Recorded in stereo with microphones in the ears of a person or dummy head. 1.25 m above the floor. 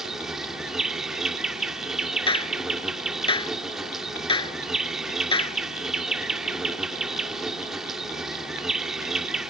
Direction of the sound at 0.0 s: Centre (ahead or behind).